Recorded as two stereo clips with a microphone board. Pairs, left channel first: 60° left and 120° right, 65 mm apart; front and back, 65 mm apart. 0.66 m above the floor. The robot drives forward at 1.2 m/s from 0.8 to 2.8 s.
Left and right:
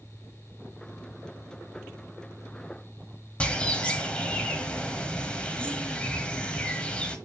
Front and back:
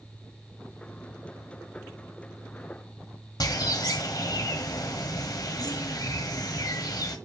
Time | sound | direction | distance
3.4 | a bird | 15° right | 1.3 m